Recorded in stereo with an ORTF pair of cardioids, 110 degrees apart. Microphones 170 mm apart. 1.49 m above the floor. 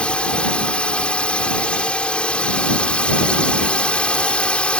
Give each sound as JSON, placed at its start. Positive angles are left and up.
{"t": 0.0, "sound": "a drone", "azimuth_deg": 5}